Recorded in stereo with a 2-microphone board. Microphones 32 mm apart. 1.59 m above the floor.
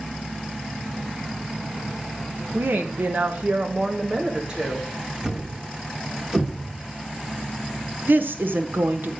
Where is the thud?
15° right (ahead or behind), 1.2 m.